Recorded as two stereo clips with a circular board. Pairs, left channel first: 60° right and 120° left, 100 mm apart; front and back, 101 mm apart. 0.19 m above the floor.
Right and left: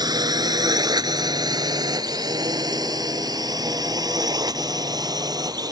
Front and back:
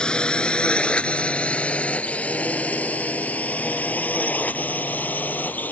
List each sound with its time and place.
0.0 s a drone: 80° left; by 5.7 s 70° left